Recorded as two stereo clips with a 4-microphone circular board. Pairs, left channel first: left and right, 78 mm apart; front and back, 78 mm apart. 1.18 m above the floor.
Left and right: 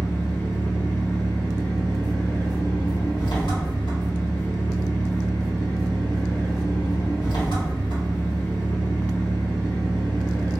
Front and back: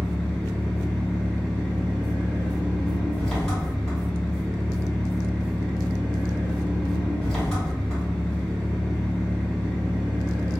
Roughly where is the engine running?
Left.